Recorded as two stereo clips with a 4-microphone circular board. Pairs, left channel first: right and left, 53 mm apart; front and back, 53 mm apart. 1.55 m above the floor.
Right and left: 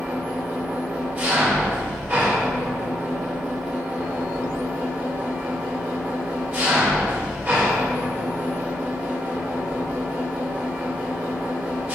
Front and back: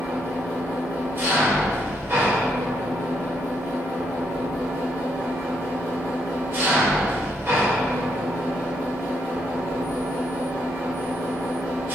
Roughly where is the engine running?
Behind left.